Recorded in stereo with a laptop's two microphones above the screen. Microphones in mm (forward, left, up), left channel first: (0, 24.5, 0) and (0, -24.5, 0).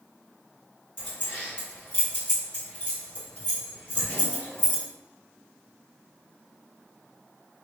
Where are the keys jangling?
25° left (ahead or behind), 1.6 m.